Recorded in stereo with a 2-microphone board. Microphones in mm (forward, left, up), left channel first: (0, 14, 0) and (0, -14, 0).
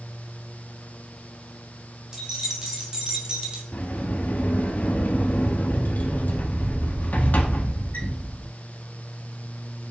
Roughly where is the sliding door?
Left.